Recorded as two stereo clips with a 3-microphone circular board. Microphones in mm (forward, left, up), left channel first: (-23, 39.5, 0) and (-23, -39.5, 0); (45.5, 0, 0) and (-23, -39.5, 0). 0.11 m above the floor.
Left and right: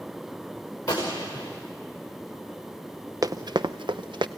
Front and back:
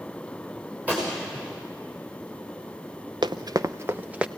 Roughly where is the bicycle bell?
No bicycle bell in this recording.